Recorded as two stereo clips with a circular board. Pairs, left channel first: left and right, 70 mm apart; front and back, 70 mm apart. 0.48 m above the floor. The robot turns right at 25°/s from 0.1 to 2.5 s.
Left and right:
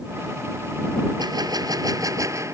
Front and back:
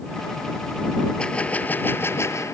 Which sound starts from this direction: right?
A gunshot, at 1.2 s.